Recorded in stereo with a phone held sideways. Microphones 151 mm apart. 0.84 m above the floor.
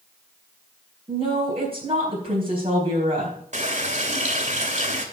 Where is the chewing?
I don't hear chewing.